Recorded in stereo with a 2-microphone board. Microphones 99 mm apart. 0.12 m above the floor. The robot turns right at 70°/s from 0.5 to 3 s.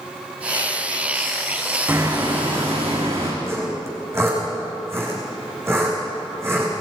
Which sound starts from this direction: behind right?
Hammering, at 1.9 s.